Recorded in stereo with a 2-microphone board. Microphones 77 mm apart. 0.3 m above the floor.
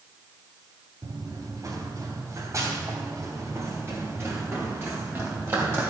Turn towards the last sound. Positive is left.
turn(degrees=-35)  # may be behind; listen again after turning